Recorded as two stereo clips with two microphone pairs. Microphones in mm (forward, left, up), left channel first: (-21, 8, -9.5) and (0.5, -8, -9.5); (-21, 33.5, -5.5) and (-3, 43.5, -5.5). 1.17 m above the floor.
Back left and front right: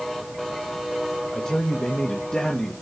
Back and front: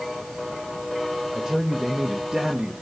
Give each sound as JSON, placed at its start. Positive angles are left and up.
{"t": 1.3, "sound": "a man speaking", "azimuth_deg": 95, "distance_m": 1.4}